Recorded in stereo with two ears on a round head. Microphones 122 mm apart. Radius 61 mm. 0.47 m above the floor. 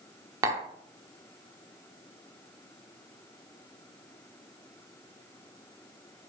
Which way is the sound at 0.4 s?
25° right (ahead or behind).